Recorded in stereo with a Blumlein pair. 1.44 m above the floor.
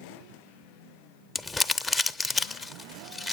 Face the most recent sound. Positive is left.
turn(degrees=10)